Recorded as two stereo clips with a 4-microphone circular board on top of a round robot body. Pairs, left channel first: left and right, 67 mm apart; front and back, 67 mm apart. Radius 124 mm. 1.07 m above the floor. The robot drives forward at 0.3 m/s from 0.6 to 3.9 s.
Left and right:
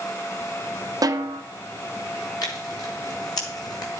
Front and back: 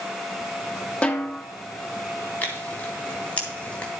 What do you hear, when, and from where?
1.0 s a snare drum: 75° right, 1.3 m; by 1.4 s 80° right, 1.3 m
2.4 s tearing paper: 65° left, 3 m; by 3.9 s 75° left, 3 m